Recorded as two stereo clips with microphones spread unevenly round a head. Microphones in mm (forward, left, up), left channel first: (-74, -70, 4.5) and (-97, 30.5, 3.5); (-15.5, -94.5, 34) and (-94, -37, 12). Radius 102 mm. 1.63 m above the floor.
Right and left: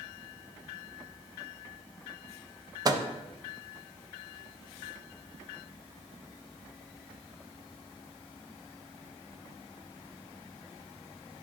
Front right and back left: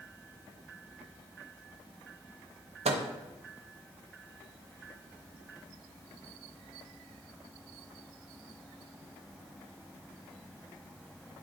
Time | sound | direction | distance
2.9 | a microwave | 160° left | 0.8 m